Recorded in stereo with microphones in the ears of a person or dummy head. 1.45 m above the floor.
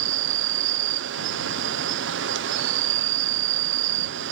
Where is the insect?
60° right (ahead or behind).